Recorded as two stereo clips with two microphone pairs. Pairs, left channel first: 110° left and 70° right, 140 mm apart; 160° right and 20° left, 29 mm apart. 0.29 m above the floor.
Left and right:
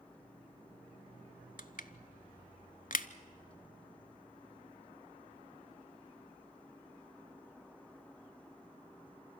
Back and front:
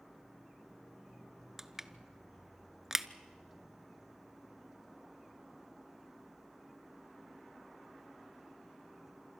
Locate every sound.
1.6 s crushing: 100° left, 0.7 m